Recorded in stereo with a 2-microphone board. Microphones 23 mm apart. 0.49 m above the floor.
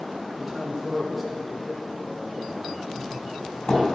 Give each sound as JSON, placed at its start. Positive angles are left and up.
{"t": 0.3, "sound": "a man speaking", "side_deg": -10, "distance_m": 2.5}
{"t": 3.0, "sound": "a doorbell", "side_deg": 60, "distance_m": 4.0}